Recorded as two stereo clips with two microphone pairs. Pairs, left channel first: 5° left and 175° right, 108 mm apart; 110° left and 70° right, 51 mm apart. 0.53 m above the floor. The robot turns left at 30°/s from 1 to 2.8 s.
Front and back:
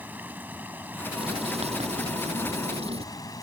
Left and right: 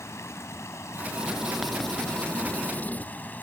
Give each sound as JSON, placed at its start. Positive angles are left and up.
{"t": 0.0, "sound": "running water", "azimuth_deg": 110}
{"t": 1.1, "sound": "writing", "azimuth_deg": -145}